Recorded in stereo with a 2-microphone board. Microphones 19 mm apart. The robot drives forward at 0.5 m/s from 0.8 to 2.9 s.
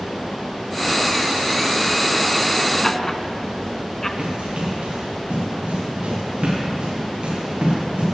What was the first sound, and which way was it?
Laughter, 20° left (ahead or behind).